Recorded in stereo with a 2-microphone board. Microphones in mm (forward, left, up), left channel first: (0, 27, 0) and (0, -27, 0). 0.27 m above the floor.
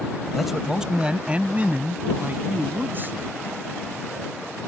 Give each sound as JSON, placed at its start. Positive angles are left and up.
{"t": 0.3, "sound": "a man speaking", "side_deg": 0}